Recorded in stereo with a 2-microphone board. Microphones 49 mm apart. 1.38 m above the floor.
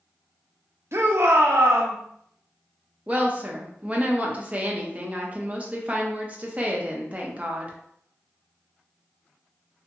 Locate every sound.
0.9 s a shout: 65° right (ahead or behind), 0.6 m
3.1 s a woman speaking: 30° right (ahead or behind), 0.6 m